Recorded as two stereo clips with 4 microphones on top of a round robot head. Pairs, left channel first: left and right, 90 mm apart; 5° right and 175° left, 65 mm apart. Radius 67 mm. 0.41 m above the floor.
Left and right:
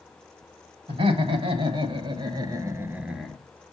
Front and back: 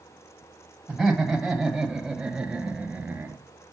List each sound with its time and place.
0.9 s laughter: 95° right, 2.5 m; by 3.4 s 165° left, 1.0 m